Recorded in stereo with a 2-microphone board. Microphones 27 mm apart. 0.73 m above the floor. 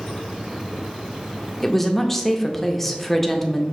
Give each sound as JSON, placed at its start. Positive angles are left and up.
{"t": 1.6, "sound": "a woman speaking", "side_deg": 10, "distance_m": 0.5}